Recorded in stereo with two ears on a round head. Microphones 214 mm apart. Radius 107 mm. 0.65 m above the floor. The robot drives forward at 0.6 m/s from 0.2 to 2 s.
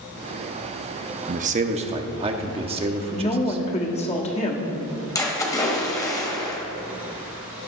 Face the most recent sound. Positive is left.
turn(degrees=15)  # may be behind; listen again after turning